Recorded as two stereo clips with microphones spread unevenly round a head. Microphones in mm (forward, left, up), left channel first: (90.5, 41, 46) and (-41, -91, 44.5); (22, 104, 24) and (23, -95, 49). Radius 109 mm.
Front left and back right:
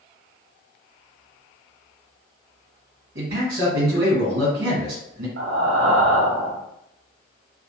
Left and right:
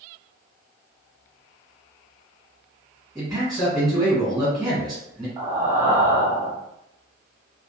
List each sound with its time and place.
3.1 s a man speaking: 175° right, 0.9 m
5.4 s breathing: 165° right, 0.7 m